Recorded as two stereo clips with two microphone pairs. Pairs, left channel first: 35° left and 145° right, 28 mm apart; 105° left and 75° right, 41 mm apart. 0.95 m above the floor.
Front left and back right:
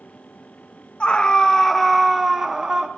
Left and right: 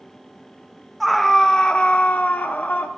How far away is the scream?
About 0.7 m.